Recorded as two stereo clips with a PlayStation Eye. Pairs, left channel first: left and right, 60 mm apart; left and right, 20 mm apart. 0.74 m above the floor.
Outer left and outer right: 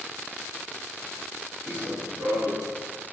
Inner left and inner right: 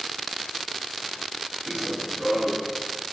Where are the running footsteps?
40° right (ahead or behind), 5.5 m.